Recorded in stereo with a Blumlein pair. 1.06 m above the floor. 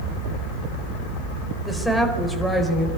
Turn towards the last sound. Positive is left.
turn(degrees=5)